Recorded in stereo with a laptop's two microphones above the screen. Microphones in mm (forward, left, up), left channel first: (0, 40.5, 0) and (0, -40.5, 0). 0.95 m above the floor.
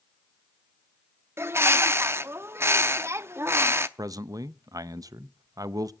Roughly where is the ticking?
No ticking in this recording.